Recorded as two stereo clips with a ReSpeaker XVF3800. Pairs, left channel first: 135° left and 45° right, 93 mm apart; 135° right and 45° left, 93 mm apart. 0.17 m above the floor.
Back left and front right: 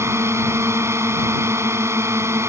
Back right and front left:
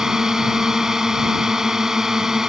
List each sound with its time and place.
0.0 s a drone: 35° right